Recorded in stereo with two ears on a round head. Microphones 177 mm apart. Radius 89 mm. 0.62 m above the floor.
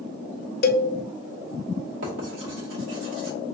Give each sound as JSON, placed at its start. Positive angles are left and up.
{"t": 0.6, "sound": "a cowbell", "side_deg": 50, "distance_m": 0.5}
{"t": 2.0, "sound": "writing", "side_deg": -70, "distance_m": 2.0}